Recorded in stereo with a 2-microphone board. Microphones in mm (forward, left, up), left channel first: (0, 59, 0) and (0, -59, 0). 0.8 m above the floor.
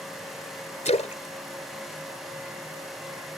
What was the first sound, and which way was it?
A splash, 75° left (ahead or behind).